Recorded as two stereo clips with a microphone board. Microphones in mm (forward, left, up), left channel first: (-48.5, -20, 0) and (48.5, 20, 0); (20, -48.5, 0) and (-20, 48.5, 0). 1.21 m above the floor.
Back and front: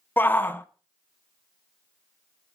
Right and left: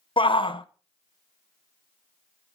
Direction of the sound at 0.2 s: 90° right.